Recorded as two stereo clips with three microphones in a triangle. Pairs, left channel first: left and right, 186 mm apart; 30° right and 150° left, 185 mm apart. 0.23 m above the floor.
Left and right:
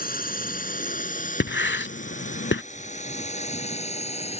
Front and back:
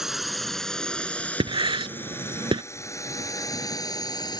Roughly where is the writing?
Left.